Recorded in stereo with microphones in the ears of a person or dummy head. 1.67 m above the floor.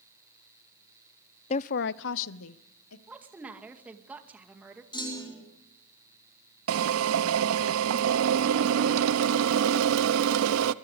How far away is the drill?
About 0.8 m.